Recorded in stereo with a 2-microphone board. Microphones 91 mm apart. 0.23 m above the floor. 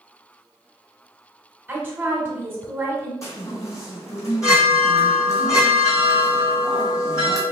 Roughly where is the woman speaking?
Right.